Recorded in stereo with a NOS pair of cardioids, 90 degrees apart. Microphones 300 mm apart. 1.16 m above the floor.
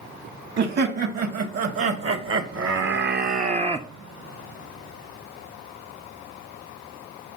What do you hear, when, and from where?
0.6 s laughter: 50° right, 2 m; by 3.9 s 10° right, 0.6 m